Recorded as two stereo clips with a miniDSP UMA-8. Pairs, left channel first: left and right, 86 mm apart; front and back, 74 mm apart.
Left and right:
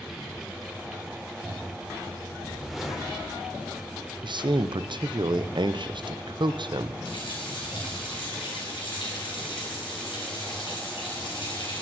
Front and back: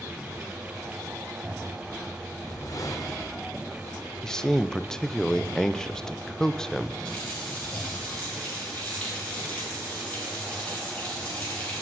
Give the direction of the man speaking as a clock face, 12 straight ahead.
3 o'clock.